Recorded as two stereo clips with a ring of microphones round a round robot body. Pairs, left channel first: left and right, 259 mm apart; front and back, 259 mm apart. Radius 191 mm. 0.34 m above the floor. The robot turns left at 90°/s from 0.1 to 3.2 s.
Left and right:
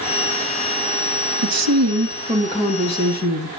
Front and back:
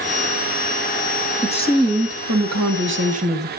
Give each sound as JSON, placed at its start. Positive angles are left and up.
{"t": 1.4, "sound": "a woman speaking", "azimuth_deg": -80, "distance_m": 2.0}